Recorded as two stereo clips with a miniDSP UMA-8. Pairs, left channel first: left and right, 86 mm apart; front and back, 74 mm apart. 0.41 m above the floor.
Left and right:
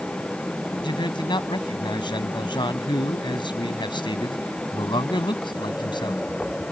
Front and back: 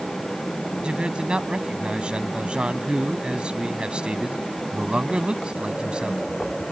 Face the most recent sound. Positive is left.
turn(degrees=105)